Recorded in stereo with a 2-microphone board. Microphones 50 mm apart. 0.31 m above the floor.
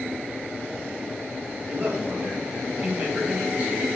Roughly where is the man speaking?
Right.